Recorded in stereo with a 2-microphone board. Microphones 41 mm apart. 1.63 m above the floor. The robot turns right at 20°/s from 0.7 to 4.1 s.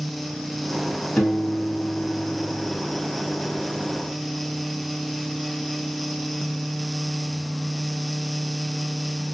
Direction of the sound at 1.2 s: 40° left.